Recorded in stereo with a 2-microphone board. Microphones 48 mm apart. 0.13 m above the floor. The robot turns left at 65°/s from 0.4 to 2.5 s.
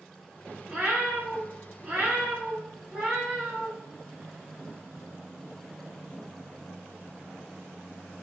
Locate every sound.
0.7 s a cat meowing: 10° right (ahead or behind), 0.9 m; by 3.7 s 15° right (ahead or behind), 0.9 m